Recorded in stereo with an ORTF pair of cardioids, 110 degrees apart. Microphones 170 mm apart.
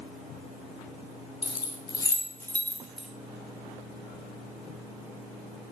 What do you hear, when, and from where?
1.4 s keys jangling: 35° left, 2 m; by 3.1 s 5° right, 2 m